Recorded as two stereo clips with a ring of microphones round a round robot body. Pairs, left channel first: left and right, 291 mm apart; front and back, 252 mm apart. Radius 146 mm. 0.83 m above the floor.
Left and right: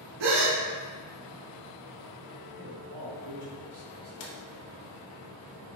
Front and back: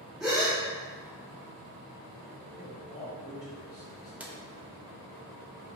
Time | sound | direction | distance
0.2 | a gasp | 90° right | 0.7 m
2.6 | a man speaking | 75° right | 1.9 m
4.2 | a drawer | 95° left | 0.7 m